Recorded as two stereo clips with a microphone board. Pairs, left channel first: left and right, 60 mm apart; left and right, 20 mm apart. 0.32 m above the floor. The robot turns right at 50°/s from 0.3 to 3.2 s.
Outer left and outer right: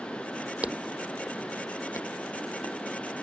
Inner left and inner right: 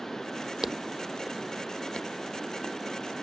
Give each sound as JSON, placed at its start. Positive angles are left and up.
{"t": 0.6, "sound": "footsteps", "side_deg": -25}